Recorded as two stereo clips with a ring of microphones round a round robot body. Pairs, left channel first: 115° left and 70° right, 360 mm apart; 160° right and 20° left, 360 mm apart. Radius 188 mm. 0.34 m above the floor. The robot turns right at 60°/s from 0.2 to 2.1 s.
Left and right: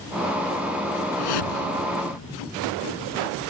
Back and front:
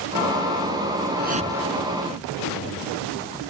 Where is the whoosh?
80° left; by 2.4 s 140° left.